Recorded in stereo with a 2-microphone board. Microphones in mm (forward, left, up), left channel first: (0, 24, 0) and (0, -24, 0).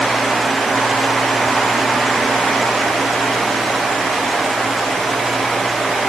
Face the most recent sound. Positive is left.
No sound to turn to.